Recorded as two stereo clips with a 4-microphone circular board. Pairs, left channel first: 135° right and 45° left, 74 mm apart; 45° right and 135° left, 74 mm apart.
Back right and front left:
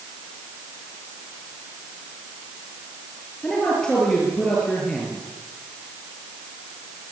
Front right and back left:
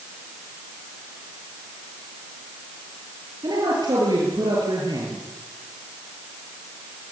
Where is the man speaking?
145° left, 6.5 m.